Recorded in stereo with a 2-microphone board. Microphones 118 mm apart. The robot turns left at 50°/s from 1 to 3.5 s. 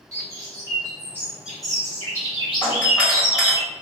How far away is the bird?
About 1.7 m.